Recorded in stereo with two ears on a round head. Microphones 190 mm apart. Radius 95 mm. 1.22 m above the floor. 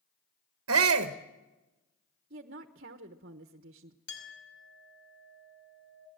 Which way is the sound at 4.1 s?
60° left (ahead or behind).